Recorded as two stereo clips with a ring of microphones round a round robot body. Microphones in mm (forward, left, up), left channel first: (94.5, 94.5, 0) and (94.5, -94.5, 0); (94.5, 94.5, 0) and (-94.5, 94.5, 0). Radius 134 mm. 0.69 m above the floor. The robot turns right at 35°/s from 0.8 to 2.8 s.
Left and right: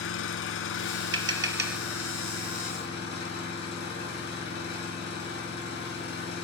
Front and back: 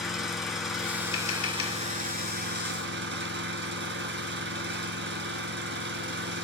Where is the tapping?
75° right, 2.5 m; by 1.8 s 50° right, 2.5 m.